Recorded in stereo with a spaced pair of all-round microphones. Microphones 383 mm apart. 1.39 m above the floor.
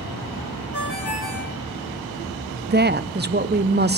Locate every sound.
0.7 s a ringtone: 70° left (ahead or behind), 5 m
2.7 s a woman speaking: 25° right (ahead or behind), 0.5 m